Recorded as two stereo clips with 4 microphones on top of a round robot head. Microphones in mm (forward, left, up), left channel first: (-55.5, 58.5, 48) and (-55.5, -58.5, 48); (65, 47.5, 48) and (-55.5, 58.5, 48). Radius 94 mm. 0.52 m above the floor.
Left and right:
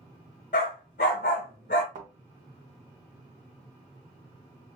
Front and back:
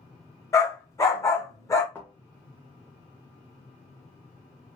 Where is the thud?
85° right, 0.8 m.